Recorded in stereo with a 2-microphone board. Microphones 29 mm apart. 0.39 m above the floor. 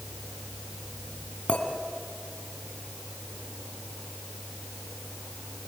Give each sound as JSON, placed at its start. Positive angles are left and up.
{"t": 1.5, "sound": "a clink", "side_deg": 45, "distance_m": 3.0}